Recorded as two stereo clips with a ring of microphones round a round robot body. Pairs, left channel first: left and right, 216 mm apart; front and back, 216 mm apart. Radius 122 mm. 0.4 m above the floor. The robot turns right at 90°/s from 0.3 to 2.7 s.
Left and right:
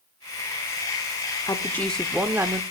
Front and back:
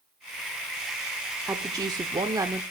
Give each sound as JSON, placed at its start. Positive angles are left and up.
{"t": 1.5, "sound": "a woman speaking", "azimuth_deg": 125, "distance_m": 0.8}